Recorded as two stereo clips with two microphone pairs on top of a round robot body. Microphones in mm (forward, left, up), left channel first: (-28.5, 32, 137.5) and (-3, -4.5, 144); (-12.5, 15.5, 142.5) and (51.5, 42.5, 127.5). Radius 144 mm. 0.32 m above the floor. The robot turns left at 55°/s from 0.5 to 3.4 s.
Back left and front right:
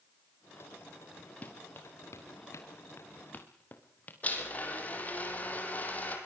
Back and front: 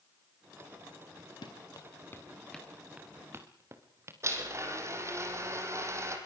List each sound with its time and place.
1.4 s running footsteps: straight behind, 3 m; by 4.1 s 70° left, 4.5 m
4.2 s a blender: 70° left, 5 m